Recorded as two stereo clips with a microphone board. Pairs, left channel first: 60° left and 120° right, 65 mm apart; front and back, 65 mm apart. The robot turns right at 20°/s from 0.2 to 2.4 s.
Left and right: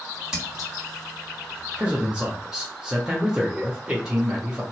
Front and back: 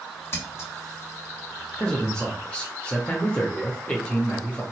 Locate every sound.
0.3 s scissors: 45° right, 1.9 m; by 0.7 s 35° right, 1.9 m
1.8 s a man speaking: 70° right, 0.9 m; by 4.6 s 60° right, 0.9 m